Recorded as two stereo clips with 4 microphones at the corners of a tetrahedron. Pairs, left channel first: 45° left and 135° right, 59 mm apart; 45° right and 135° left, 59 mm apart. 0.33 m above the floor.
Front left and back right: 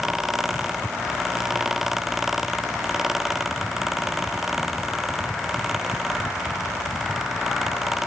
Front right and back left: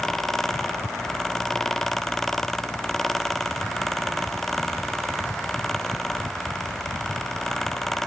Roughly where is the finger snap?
No finger snap in this recording.